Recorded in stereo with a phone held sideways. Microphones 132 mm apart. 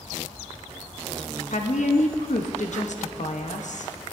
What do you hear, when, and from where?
1.5 s a woman speaking: 65° left (ahead or behind), 0.9 m